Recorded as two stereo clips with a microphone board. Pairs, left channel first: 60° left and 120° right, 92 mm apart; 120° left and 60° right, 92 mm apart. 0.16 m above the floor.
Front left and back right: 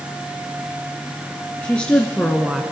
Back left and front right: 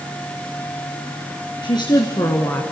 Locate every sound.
1.6 s a woman speaking: 130° left, 2.5 m; by 2.6 s 165° left, 1.4 m